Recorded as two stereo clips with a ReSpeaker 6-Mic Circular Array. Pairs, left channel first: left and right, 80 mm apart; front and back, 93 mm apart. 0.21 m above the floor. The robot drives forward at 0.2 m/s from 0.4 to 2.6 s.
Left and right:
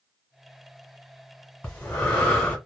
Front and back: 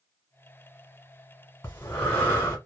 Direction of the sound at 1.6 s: 30° left.